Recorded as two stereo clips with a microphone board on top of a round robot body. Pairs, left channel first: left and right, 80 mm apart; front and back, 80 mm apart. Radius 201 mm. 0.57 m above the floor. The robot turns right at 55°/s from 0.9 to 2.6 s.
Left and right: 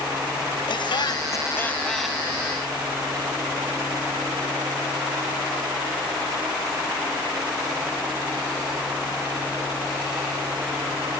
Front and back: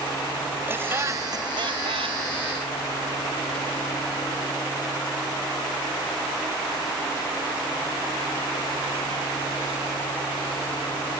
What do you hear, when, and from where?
0.7 s laughter: 115° left; by 2.2 s 170° right